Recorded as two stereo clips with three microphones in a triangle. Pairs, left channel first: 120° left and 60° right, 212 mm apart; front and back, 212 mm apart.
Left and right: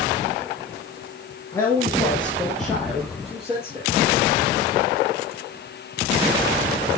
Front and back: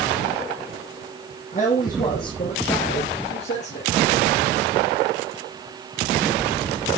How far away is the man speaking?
About 2.5 m.